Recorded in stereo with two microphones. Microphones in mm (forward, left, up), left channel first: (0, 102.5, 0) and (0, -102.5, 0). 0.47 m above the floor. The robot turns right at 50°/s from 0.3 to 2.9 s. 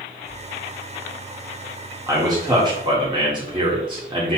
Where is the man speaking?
15° right (ahead or behind), 1.3 m; by 4.4 s 25° right (ahead or behind), 1.3 m.